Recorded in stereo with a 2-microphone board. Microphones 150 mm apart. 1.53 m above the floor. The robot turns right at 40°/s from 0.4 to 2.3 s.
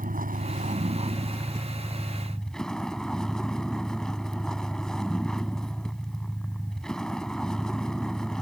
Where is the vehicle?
70° right; by 8.4 s 5° left.